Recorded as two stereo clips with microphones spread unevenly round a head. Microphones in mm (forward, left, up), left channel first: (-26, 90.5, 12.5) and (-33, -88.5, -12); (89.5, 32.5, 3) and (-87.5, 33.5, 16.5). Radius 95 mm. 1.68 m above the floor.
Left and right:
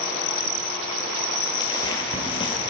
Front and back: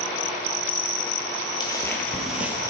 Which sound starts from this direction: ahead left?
Footsteps, at 1.6 s.